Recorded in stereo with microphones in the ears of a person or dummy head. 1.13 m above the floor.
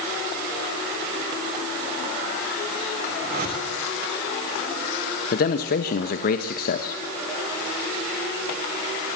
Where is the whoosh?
50° right (ahead or behind), 5.5 m.